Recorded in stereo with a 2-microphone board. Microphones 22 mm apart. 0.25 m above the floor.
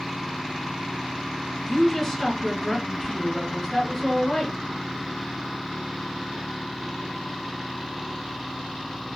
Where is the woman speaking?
20° left (ahead or behind), 1.4 m.